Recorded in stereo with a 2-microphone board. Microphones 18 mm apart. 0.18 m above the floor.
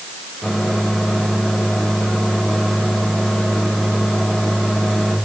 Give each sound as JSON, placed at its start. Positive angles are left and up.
{"t": 0.4, "sound": "a microwave", "side_deg": 35, "distance_m": 6.0}